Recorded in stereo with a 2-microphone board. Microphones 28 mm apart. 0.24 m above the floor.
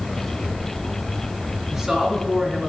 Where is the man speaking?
25° right (ahead or behind), 2 m; by 2.7 s 10° right (ahead or behind), 2 m.